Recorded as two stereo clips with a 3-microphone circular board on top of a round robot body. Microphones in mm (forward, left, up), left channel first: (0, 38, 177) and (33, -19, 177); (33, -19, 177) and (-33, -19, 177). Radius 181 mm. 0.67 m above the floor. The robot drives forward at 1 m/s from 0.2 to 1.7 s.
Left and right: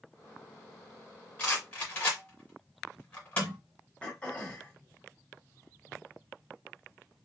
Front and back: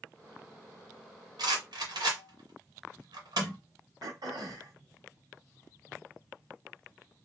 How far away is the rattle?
About 1.5 m.